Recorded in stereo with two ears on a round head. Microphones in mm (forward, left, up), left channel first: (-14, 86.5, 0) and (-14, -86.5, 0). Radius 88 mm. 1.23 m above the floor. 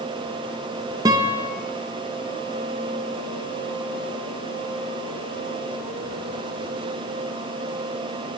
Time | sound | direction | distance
1.1 | a guitar | 20° right (ahead or behind) | 0.6 m